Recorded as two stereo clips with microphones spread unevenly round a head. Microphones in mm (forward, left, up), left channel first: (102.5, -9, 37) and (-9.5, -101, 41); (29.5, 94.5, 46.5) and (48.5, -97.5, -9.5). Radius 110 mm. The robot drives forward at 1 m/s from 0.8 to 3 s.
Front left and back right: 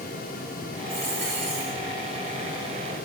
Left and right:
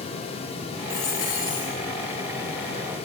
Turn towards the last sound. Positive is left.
turn(degrees=165)